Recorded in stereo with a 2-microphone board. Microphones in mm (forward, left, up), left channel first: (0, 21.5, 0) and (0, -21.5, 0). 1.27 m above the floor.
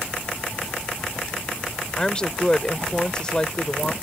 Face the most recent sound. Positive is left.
turn(degrees=20)  # may be behind; listen again after turning